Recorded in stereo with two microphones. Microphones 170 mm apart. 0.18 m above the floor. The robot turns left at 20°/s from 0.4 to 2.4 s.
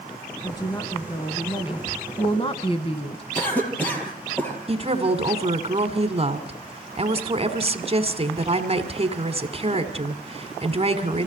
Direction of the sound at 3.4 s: 10° left (ahead or behind).